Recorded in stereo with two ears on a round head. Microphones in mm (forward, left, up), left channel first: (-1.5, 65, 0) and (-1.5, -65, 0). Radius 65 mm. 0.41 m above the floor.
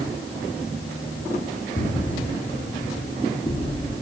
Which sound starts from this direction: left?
Footsteps, at 1.8 s.